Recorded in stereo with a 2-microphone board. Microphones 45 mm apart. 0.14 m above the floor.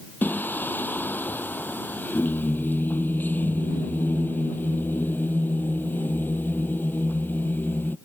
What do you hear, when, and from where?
0.2 s singing: 40° left (ahead or behind)